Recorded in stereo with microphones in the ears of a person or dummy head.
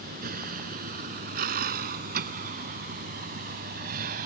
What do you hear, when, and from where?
0.0 s a vehicle: 50° right (ahead or behind); by 4.3 s 45° right (ahead or behind)